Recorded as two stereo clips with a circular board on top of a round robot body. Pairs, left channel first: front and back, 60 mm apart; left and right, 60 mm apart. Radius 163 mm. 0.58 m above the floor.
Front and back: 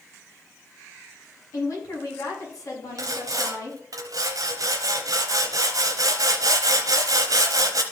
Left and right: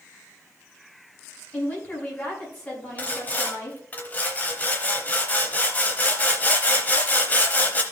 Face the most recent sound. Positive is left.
turn(degrees=155)